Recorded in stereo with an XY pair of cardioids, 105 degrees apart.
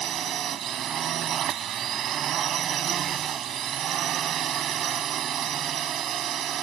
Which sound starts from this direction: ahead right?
A drone, at 0.0 s.